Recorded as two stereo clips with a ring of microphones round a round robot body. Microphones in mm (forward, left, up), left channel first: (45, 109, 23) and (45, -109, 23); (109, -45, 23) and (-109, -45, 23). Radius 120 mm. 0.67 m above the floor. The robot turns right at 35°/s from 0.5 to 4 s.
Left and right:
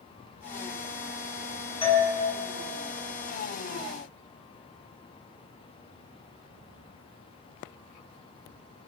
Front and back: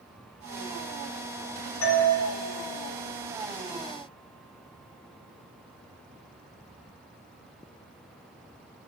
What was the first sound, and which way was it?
A doorbell, 25° left.